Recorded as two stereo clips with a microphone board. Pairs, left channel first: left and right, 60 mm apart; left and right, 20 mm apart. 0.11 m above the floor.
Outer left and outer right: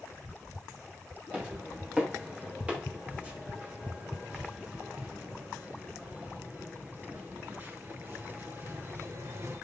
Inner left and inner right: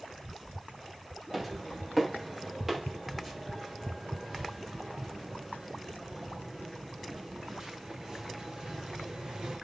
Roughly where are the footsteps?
Right.